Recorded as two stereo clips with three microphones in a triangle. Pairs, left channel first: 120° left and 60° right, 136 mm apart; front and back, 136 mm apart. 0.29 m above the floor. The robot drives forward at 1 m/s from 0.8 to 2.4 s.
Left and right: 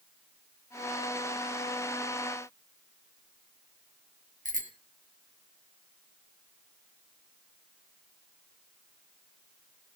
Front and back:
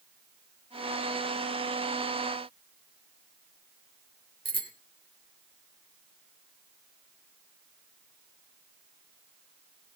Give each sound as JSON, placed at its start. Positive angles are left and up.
{"t": 4.5, "sound": "a bicycle bell", "azimuth_deg": -50, "distance_m": 3.5}